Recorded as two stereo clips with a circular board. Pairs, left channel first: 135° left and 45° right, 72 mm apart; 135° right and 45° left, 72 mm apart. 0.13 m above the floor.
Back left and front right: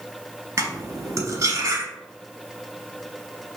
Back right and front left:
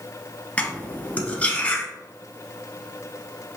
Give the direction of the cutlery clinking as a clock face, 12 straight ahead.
2 o'clock.